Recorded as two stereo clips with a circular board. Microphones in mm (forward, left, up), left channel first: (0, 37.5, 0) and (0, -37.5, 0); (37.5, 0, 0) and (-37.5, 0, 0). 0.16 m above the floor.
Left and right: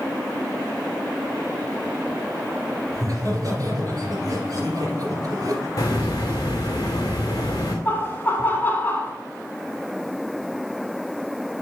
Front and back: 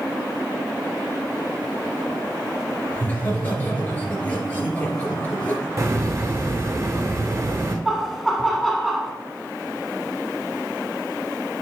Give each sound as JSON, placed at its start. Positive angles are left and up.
{"t": 2.9, "sound": "laughter", "azimuth_deg": -65, "distance_m": 3.0}
{"t": 5.8, "sound": "a hiss", "azimuth_deg": 130, "distance_m": 3.0}
{"t": 7.8, "sound": "laughter", "azimuth_deg": 90, "distance_m": 1.1}